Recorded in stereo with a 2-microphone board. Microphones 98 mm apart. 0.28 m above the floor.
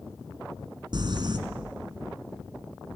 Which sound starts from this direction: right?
Crumpling, at 0.9 s.